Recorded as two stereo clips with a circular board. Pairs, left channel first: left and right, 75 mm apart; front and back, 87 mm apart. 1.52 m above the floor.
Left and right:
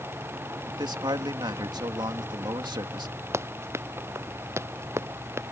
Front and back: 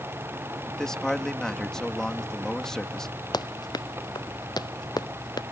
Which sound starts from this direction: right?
A man speaking, at 0.7 s.